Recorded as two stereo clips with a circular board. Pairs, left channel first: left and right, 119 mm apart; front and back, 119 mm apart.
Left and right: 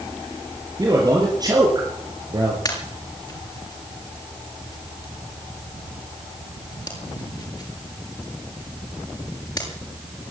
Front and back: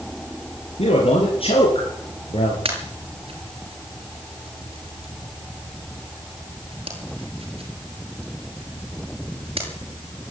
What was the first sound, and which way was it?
A man speaking, 30° right.